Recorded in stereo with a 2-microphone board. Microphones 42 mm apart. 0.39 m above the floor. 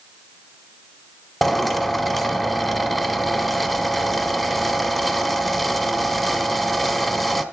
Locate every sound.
1.4 s a drill: centre (ahead or behind), 1.2 m